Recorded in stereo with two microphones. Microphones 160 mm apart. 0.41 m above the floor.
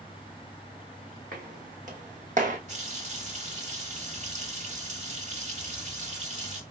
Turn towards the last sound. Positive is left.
turn(degrees=-45)  # may be behind; listen again after turning